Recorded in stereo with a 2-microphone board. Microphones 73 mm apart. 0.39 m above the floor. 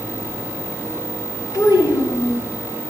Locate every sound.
1.5 s a child speaking: 50° left (ahead or behind), 2.5 m